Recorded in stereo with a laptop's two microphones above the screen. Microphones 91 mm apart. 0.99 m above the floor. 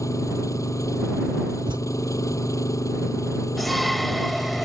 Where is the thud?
60° right (ahead or behind).